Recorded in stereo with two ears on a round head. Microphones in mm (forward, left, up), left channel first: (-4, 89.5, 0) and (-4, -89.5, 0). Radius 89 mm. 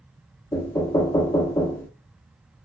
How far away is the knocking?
About 0.6 m.